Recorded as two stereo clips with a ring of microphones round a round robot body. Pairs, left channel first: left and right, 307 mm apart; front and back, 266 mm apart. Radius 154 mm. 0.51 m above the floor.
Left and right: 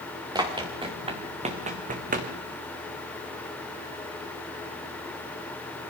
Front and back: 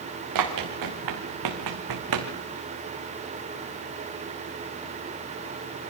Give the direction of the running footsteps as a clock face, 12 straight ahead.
6 o'clock.